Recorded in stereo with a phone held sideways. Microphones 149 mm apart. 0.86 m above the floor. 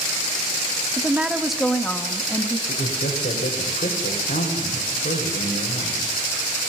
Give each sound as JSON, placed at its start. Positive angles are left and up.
{"t": 1.0, "sound": "a woman speaking", "side_deg": -15, "distance_m": 1.1}
{"t": 2.7, "sound": "a man speaking", "side_deg": 80, "distance_m": 4.5}